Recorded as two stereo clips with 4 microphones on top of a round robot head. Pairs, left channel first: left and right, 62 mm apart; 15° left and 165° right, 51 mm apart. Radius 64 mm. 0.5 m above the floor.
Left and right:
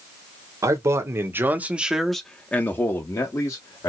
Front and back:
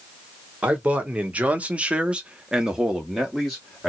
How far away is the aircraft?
No aircraft in this recording.